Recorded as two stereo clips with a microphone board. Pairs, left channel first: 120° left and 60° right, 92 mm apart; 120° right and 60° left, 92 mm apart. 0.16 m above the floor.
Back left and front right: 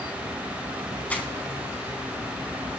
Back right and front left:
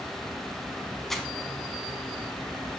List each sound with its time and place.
1.1 s crumpling: 160° left, 1.3 m